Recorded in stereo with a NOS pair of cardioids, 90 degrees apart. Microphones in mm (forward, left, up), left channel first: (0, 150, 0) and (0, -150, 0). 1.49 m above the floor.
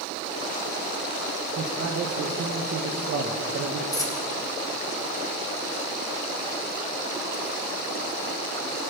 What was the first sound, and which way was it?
A man speaking, 50° right.